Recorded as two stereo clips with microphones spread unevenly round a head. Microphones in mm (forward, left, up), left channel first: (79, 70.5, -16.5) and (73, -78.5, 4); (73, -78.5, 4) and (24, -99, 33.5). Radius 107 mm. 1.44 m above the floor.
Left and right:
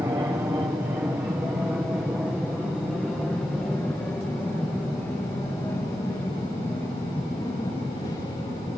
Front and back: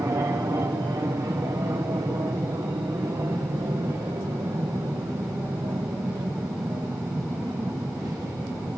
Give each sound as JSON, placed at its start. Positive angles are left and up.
{"t": 0.0, "sound": "an aircraft", "azimuth_deg": -160}